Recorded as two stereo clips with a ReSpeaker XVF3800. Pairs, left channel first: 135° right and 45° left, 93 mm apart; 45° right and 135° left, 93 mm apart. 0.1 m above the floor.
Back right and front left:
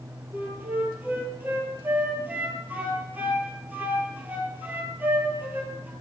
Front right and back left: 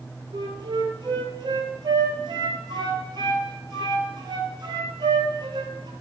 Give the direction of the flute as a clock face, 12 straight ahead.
8 o'clock.